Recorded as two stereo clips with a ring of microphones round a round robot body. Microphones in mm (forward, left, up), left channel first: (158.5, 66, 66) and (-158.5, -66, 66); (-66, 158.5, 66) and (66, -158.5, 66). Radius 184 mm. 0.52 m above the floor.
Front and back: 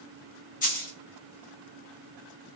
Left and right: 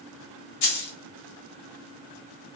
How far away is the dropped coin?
About 1.2 m.